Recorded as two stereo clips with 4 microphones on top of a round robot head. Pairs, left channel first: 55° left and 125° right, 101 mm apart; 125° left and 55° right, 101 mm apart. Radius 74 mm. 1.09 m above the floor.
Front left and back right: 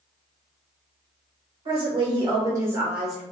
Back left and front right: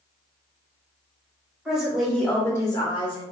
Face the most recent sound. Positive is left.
turn(degrees=145)